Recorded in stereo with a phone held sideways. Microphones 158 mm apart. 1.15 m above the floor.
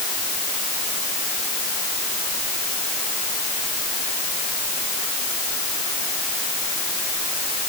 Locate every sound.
Only background noise.